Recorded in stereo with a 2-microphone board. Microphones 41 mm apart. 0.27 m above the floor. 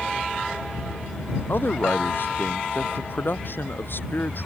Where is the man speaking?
65° left (ahead or behind).